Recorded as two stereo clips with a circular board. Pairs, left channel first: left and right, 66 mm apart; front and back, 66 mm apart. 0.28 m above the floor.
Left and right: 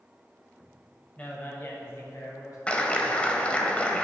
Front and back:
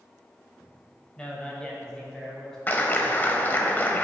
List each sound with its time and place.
1.2 s a man speaking: 55° left, 1.4 m; by 2.6 s 80° left, 2 m
2.7 s a clap: 35° left, 0.8 m